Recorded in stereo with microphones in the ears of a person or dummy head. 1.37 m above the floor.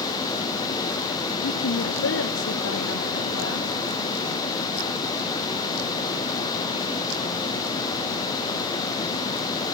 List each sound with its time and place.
1.4 s a woman speaking: 70° left (ahead or behind), 0.8 m; by 3.7 s 75° left (ahead or behind), 2 m